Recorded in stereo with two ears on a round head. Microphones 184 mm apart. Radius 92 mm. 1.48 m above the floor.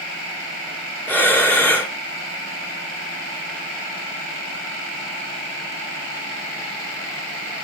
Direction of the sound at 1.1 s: 10° left (ahead or behind).